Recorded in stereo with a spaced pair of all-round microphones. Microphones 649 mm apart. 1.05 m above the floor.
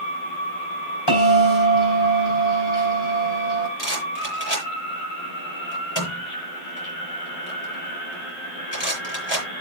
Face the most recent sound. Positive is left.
turn(degrees=40)  # may be behind; listen again after turning